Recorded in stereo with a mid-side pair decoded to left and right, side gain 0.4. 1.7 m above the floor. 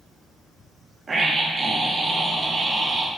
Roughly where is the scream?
Ahead right.